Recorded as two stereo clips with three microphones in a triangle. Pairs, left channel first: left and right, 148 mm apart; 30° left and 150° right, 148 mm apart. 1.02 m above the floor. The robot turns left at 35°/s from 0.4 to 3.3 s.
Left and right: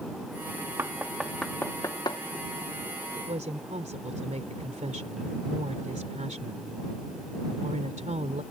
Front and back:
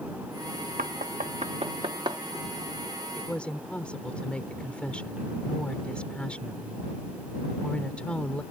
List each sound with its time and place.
0.8 s knocking: 165° right; by 2.2 s 145° left
3.2 s a woman speaking: 45° right; by 8.4 s 50° right